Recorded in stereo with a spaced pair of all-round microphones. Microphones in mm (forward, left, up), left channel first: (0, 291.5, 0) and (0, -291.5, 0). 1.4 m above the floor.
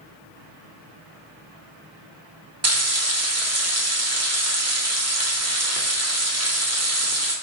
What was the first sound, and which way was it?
Frying, 25° right (ahead or behind).